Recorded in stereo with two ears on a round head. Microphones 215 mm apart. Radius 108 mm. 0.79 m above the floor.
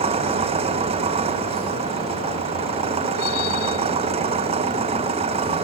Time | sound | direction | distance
0.0 | an engine running | 25° right (ahead or behind) | ?